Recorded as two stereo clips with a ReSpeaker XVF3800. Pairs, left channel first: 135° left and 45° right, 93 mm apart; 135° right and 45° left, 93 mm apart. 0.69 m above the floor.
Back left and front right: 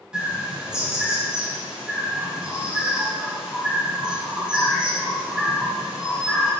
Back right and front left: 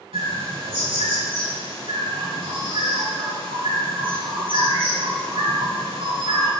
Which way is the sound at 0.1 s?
35° left.